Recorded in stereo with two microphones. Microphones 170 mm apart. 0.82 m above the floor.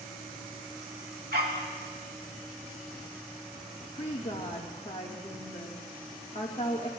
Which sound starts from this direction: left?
A woman speaking, at 3.9 s.